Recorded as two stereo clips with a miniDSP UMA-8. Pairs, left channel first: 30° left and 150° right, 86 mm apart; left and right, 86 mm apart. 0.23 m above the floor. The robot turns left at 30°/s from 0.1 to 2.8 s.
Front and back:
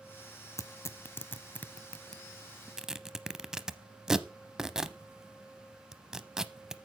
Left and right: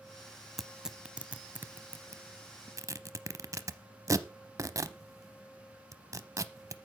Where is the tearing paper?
5° right, 0.6 m; by 6.8 s 70° right, 0.6 m.